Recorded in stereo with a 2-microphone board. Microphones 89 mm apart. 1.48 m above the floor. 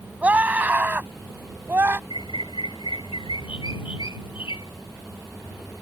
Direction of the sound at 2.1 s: 85° left.